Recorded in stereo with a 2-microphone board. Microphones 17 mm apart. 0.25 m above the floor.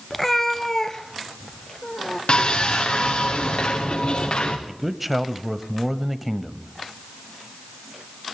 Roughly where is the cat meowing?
Centre.